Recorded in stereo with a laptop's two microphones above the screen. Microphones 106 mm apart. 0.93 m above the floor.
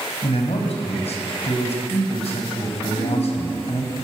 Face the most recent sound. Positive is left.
turn(degrees=45)  # may be behind; listen again after turning